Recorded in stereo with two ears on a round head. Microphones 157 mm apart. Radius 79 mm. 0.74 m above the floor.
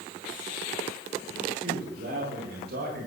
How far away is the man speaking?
About 9.5 m.